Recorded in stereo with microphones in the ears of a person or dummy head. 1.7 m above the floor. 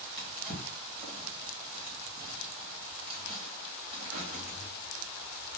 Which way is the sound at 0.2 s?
20° right (ahead or behind).